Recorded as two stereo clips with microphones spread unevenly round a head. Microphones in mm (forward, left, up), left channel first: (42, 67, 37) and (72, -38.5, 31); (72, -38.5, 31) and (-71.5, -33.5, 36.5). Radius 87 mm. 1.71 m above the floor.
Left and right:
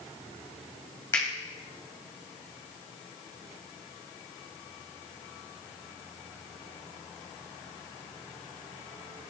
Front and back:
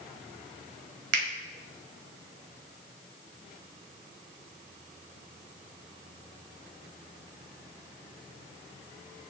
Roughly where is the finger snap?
Behind.